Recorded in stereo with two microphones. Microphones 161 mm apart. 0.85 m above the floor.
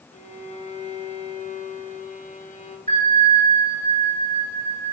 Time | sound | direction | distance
0.1 | a violin | 50° left (ahead or behind) | 1.1 m
2.9 | a bell | 55° right (ahead or behind) | 2.5 m